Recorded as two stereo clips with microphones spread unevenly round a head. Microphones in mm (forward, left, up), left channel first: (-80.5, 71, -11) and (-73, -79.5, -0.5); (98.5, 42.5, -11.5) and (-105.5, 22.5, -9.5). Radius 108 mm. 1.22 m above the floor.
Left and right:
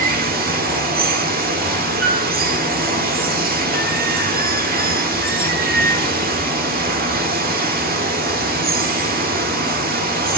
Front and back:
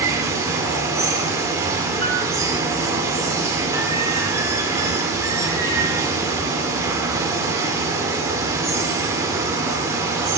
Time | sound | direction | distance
0.0 | running water | 100° right | 1.7 m
2.0 | a piano | 90° right | 6.5 m